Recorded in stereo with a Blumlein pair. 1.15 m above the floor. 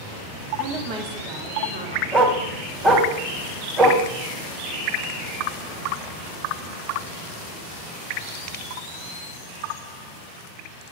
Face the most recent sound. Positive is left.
turn(degrees=-25)